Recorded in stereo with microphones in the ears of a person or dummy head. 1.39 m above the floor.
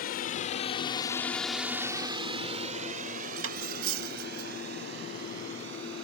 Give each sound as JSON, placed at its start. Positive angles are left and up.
{"t": 0.0, "sound": "a drone", "side_deg": 50}
{"t": 3.4, "sound": "cutlery clinking", "side_deg": -85}